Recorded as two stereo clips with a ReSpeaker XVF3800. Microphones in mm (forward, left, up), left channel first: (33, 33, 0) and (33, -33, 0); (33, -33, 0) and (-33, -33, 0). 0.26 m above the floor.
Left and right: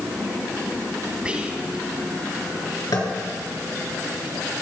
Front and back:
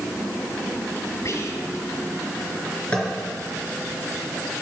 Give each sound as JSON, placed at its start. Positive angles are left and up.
{"t": 1.2, "sound": "whispering", "azimuth_deg": -20, "distance_m": 1.9}
{"t": 2.9, "sound": "tapping", "azimuth_deg": 70, "distance_m": 4.0}